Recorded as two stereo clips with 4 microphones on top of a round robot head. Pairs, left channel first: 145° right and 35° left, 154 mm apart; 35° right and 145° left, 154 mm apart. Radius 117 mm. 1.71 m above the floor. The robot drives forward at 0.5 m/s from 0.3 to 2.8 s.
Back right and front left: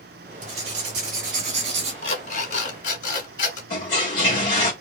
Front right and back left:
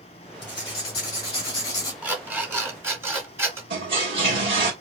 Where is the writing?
20° left, 3 m; by 1.9 s 25° left, 2 m.